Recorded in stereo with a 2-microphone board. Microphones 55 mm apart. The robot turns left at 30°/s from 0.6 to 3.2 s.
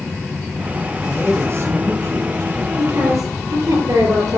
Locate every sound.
1.0 s a man speaking: 35° right, 5 m; by 2.7 s 85° right, 5 m
2.8 s a woman speaking: 80° right, 6.5 m